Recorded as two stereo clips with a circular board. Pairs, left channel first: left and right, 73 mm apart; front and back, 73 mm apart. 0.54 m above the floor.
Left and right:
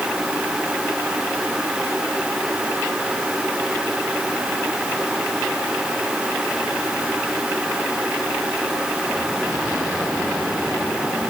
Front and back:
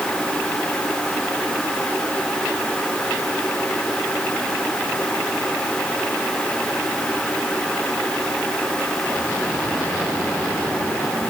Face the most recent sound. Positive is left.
No sound to turn to.